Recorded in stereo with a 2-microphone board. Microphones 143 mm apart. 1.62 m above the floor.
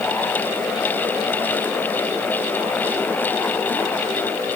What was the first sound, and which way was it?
Only background noise.